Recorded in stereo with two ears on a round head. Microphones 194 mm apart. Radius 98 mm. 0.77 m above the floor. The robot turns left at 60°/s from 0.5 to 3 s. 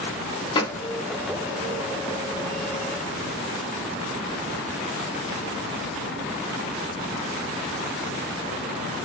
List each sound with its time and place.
0.6 s a gunshot: 20° left (ahead or behind), 1.2 m; by 0.8 s 5° left (ahead or behind), 1.2 m